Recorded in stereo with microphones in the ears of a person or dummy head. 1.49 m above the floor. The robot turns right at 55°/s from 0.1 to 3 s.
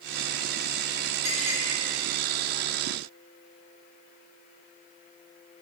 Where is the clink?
40° right (ahead or behind), 0.9 m; by 1.6 s 45° right (ahead or behind), 0.9 m.